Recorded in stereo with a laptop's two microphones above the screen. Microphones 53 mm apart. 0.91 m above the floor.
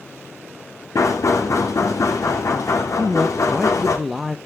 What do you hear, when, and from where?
0.9 s knocking: 80° left, 2 m
3.0 s a man speaking: 5° right (ahead or behind), 0.5 m